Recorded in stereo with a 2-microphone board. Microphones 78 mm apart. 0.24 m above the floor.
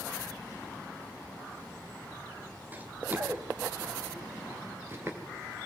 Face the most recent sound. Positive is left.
turn(degrees=-35)  # may be behind; listen again after turning